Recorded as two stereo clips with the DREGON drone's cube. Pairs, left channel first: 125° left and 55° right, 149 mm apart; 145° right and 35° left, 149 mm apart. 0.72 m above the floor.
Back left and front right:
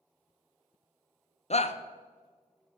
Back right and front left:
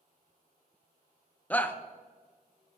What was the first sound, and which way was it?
A shout, 140° left.